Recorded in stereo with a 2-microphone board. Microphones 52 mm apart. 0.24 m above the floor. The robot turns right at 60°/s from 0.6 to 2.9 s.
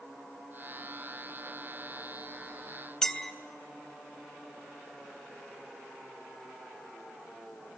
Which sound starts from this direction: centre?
A clink, at 3.0 s.